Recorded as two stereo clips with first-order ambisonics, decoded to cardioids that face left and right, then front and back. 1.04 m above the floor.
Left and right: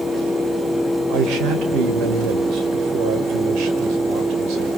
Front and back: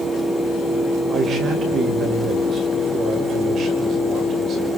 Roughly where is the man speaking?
Behind right.